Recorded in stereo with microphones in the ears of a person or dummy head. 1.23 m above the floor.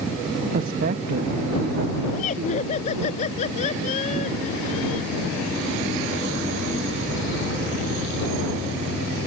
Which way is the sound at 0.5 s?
45° right (ahead or behind).